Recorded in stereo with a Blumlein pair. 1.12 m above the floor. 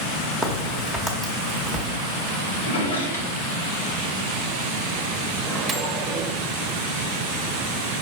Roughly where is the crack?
Ahead.